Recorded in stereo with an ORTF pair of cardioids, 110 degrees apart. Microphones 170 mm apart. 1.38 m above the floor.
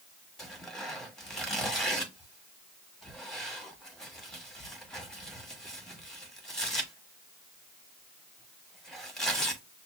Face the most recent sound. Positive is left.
turn(degrees=5)